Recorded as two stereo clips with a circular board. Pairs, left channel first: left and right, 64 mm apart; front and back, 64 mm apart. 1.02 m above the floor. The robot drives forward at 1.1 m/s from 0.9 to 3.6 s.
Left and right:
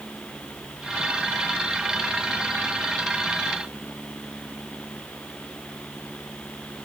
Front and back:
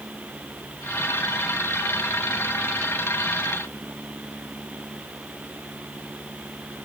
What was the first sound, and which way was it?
Only background noise.